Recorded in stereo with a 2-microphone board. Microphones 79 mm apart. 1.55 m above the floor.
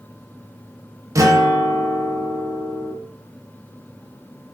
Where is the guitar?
40° right (ahead or behind), 0.8 m.